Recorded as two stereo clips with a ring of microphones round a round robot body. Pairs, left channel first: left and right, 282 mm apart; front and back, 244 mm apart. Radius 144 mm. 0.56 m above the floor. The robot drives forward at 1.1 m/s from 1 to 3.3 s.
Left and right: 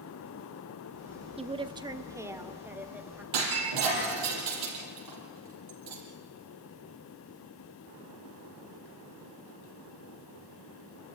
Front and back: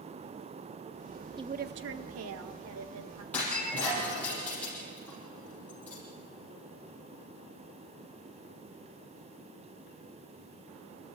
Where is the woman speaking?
130° right, 0.7 m; by 3.2 s 175° right, 2.5 m.